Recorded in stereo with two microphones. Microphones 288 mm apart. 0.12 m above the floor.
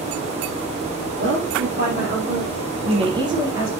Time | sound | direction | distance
1.2 | a woman speaking | 45° right (ahead or behind) | 4.5 m